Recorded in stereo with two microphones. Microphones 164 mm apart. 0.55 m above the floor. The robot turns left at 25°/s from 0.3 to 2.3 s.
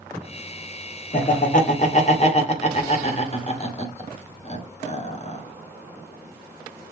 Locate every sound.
1.1 s laughter: 55° left (ahead or behind), 1.7 m; by 5.4 s 40° left (ahead or behind), 1.7 m